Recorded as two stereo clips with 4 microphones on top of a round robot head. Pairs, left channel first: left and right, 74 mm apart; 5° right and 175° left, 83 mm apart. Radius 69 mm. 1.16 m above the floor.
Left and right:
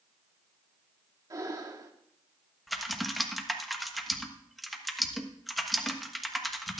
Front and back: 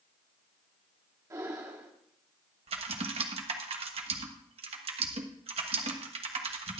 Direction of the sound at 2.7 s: Straight behind.